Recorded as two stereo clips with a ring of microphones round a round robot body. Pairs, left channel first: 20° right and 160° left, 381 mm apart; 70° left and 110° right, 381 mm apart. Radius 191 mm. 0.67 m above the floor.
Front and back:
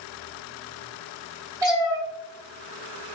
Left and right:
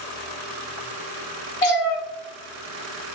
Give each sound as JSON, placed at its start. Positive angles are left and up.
{"t": 1.6, "sound": "a cat meowing", "azimuth_deg": 75, "distance_m": 1.1}